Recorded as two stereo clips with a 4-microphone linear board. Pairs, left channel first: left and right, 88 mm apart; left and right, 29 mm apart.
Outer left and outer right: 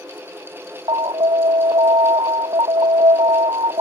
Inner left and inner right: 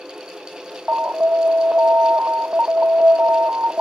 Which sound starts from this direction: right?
An alarm, at 0.9 s.